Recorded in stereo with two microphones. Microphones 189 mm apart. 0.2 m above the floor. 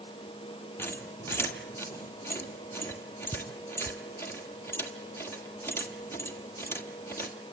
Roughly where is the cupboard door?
I don't hear a cupboard door.